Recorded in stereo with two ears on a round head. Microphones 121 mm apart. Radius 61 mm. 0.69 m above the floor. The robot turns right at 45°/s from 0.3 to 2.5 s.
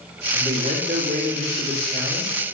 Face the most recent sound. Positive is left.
turn(degrees=-45)